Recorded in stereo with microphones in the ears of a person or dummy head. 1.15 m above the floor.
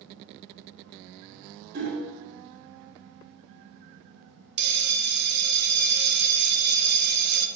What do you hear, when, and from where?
1.7 s hammering: 50° right (ahead or behind), 3.5 m
4.6 s a bell: 50° right (ahead or behind), 1.1 m